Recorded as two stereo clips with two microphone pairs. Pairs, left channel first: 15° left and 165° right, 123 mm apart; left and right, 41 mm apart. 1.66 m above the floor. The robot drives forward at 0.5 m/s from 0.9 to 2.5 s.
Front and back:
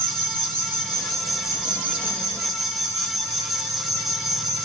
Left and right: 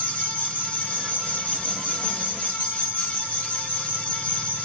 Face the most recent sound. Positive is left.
turn(degrees=-110)